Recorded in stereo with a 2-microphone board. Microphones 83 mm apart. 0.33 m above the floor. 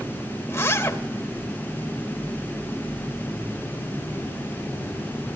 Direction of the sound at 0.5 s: 30° left (ahead or behind).